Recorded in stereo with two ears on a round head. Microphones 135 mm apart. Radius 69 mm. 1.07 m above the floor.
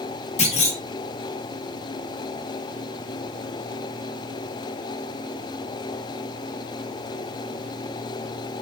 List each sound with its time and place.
0.4 s a clunk: 45° left (ahead or behind), 0.8 m